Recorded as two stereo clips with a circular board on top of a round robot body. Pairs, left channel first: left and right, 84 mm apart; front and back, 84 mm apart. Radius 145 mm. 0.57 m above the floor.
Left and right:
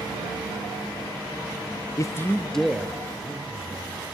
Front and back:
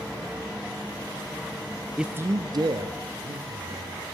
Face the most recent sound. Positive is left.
turn(degrees=-165)